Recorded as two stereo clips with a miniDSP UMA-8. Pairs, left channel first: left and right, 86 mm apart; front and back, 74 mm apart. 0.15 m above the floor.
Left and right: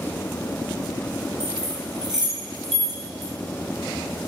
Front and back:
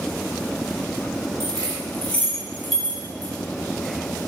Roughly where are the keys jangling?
Ahead.